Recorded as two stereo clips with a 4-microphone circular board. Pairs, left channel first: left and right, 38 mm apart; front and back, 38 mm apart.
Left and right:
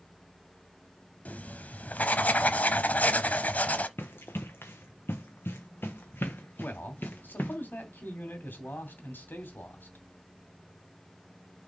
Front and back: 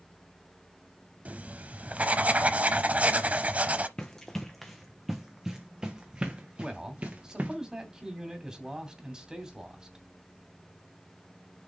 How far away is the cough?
I don't hear a cough.